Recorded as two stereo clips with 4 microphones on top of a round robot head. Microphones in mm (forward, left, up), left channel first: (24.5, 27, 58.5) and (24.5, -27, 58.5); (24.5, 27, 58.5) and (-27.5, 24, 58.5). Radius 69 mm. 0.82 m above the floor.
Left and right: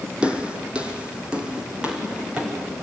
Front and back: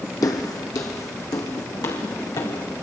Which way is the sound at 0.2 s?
20° right.